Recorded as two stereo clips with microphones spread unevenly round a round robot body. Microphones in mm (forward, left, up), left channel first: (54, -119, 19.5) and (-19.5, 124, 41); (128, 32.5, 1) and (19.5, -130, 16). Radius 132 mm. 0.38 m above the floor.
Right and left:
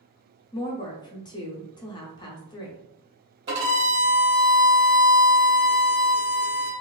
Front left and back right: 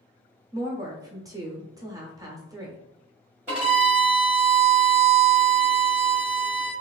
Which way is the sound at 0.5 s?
75° right.